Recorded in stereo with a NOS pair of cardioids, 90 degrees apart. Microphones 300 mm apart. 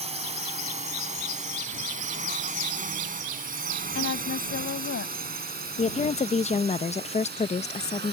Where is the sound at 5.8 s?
25° left.